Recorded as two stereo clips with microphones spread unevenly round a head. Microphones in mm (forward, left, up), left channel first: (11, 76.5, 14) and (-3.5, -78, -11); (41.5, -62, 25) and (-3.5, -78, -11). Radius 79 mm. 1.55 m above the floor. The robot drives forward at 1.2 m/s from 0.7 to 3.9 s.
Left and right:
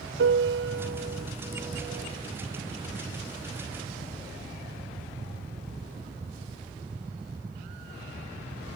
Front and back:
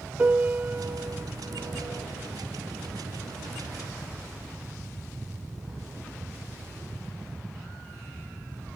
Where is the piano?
105° right, 0.8 m; by 2.3 s 160° right, 2 m.